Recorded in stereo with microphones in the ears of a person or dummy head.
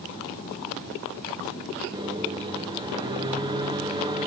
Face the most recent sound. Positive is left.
turn(degrees=-20)  # may be behind; listen again after turning